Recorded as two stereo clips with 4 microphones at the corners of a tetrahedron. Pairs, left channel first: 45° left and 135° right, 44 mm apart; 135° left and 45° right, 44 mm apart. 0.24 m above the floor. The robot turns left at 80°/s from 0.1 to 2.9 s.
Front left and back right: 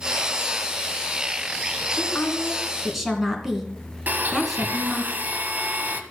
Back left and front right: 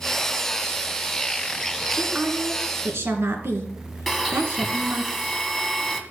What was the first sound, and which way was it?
A woman speaking, 25° left.